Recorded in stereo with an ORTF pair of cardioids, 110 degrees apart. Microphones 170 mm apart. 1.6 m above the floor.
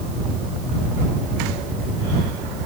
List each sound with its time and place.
Only background noise.